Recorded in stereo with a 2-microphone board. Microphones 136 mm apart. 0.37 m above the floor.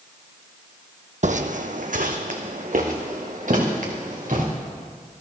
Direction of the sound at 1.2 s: 65° right (ahead or behind).